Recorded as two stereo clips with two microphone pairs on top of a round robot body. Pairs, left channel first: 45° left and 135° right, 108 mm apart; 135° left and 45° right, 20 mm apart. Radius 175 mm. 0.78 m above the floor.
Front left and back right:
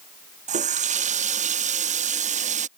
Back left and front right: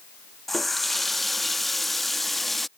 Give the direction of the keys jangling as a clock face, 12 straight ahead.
I don't hear keys jangling.